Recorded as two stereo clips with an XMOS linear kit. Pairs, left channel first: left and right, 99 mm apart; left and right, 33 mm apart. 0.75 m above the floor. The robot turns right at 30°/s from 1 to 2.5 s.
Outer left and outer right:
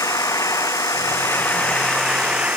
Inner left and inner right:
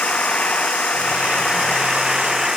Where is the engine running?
150° left; by 2.6 s 165° right.